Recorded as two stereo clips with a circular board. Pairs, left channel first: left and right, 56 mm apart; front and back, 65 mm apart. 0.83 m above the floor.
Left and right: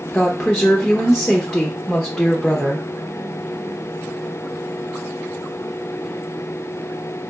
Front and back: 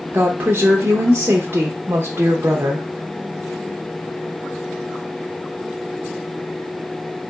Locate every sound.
0.1 s a woman speaking: 165° left, 0.7 m